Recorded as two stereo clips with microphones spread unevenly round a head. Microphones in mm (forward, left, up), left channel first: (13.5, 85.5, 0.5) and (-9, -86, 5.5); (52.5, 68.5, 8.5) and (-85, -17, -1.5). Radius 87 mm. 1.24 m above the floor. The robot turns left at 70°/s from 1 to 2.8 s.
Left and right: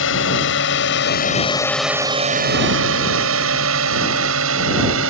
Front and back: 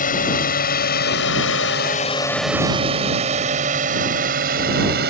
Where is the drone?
70° left; by 5.1 s 110° right.